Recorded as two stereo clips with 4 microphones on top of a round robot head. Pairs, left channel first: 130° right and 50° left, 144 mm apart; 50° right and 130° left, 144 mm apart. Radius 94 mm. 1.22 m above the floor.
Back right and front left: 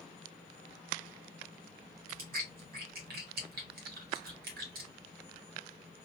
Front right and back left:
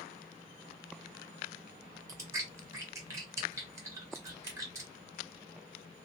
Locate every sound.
2.1 s chewing: 60° left, 0.8 m